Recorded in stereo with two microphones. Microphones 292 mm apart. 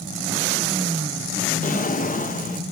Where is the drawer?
30° left (ahead or behind), 0.9 m.